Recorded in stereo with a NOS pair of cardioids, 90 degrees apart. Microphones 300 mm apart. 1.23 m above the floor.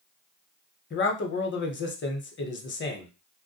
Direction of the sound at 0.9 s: 40° left.